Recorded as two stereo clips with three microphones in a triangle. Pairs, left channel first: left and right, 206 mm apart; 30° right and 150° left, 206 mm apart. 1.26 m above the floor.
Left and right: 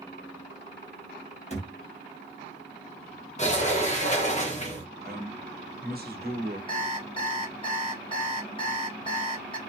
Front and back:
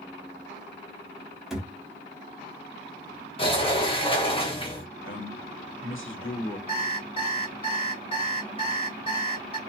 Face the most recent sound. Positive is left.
turn(degrees=30)